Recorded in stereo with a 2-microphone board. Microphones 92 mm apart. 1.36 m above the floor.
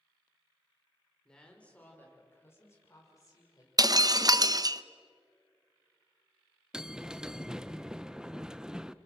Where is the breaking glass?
40° right (ahead or behind), 0.6 m.